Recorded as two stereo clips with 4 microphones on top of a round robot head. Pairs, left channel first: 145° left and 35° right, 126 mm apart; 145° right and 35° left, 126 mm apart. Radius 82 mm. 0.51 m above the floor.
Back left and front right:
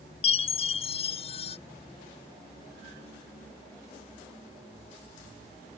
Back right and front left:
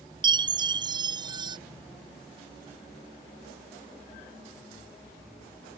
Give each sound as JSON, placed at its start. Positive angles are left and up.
{"t": 0.2, "sound": "a chime", "azimuth_deg": 95}